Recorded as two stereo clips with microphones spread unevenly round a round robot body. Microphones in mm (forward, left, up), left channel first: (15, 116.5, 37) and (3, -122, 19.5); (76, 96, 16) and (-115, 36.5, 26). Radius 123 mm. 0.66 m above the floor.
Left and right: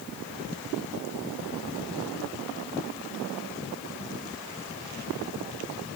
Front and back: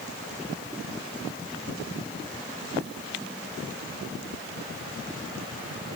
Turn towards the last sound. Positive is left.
No sound to turn to.